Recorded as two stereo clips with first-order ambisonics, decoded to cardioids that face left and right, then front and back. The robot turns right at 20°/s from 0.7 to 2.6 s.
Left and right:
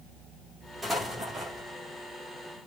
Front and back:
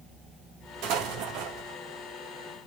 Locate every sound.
0.8 s an explosion: 175° right, 2.5 m; by 1.8 s 155° right, 2.5 m